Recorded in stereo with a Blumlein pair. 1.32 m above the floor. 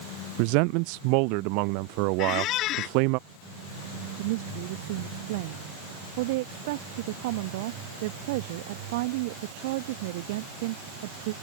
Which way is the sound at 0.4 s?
45° right.